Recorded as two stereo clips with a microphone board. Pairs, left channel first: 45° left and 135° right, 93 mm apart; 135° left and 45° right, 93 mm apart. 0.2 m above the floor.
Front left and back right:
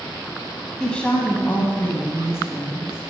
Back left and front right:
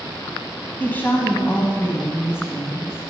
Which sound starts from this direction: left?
A woman speaking, at 0.8 s.